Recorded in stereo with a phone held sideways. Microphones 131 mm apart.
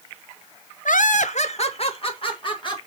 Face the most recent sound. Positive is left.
turn(degrees=40)  # may be behind; listen again after turning